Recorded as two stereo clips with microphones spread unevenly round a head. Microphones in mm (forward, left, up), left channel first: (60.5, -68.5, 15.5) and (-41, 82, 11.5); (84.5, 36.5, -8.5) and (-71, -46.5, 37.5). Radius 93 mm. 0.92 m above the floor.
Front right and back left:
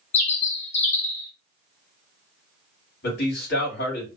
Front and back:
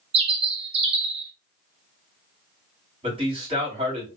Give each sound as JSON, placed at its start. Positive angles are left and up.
{"t": 0.1, "sound": "a bird", "azimuth_deg": -110, "distance_m": 0.9}
{"t": 3.0, "sound": "a man speaking", "azimuth_deg": -90, "distance_m": 2.5}